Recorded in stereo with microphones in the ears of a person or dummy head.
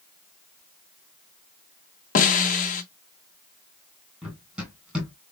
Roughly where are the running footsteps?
Centre.